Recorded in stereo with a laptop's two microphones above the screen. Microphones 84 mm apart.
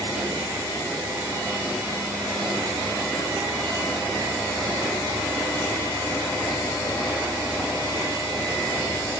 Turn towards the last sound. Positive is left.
No sound to turn to.